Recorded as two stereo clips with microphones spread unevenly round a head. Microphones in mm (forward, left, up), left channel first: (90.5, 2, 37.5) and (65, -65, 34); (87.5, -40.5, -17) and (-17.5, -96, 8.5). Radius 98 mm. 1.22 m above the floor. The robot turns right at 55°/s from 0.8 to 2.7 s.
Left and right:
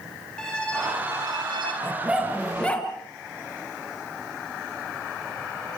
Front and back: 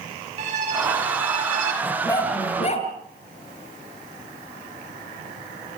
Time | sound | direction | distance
0.4 | a violin | 155° left | 6 m
1.8 | a dog barking | 50° right | 5 m